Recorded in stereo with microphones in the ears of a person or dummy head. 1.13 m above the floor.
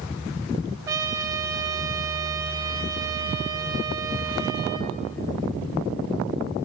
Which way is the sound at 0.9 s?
15° right (ahead or behind).